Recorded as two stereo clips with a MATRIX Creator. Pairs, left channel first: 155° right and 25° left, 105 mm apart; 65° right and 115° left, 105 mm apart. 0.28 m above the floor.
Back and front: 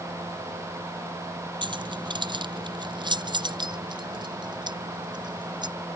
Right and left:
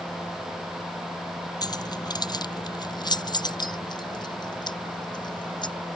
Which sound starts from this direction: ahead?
Keys jangling, at 1.6 s.